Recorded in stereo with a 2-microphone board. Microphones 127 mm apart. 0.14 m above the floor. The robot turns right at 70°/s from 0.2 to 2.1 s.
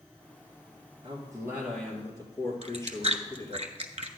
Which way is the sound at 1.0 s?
50° right.